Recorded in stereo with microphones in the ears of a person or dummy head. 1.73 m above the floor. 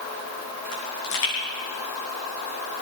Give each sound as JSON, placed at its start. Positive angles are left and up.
{"t": 0.7, "sound": "a pop", "side_deg": 75, "distance_m": 9.0}